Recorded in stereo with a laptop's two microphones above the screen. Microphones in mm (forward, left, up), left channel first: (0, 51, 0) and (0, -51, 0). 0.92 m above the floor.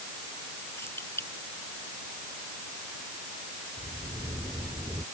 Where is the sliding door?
30° right (ahead or behind).